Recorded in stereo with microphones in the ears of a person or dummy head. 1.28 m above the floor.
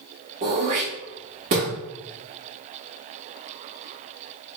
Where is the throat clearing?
20° right (ahead or behind), 0.9 m.